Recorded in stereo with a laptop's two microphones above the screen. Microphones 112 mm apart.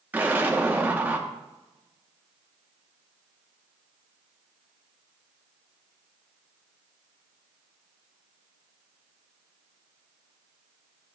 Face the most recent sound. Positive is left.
turn(degrees=-15)  # may be behind; listen again after turning